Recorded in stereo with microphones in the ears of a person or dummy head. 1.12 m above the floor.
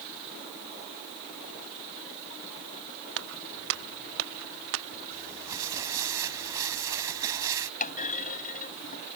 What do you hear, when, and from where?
3.2 s footsteps: 80° right
5.1 s crumpling: 15° right (ahead or behind)
7.8 s a clunk: 45° left (ahead or behind)